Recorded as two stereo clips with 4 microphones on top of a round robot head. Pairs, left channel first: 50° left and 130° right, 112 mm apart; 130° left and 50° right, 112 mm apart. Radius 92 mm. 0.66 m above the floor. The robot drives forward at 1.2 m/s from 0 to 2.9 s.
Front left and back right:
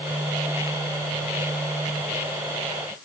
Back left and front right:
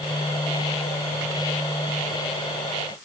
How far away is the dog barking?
I don't hear a dog barking.